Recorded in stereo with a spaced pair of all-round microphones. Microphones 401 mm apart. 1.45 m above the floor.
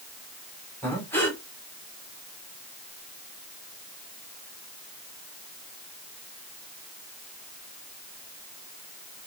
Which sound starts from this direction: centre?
Breathing, at 0.8 s.